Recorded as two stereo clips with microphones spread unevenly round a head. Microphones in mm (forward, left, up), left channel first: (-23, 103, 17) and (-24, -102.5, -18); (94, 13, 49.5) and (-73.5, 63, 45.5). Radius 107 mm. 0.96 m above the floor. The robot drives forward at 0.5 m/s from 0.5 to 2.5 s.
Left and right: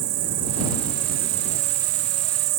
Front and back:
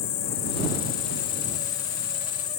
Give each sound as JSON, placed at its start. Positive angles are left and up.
{"t": 0.0, "sound": "an insect", "azimuth_deg": -45}